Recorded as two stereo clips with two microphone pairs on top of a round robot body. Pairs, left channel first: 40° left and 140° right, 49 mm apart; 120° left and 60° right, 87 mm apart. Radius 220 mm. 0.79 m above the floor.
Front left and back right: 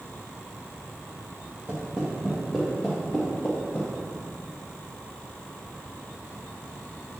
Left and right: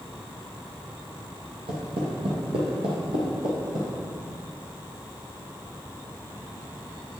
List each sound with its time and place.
1.7 s footsteps: 80° right, 1.7 m; by 3.9 s 10° right, 2.5 m